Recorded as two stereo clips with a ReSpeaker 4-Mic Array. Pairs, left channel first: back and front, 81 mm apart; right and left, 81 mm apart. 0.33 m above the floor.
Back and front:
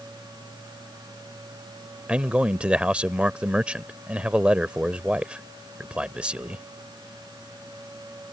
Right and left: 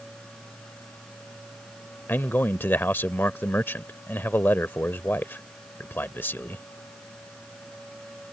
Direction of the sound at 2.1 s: 60° right.